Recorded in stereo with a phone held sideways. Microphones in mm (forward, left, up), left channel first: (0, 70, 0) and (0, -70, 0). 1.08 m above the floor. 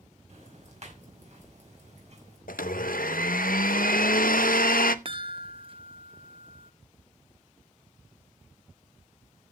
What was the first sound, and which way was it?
Ticking, 55° right (ahead or behind).